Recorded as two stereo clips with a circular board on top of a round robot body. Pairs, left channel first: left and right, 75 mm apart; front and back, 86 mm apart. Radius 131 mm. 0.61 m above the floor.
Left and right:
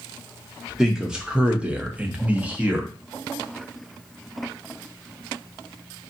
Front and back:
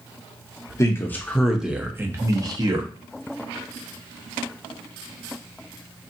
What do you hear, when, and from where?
0.8 s a man speaking: 10° right, 0.8 m; by 2.9 s 160° right, 1.1 m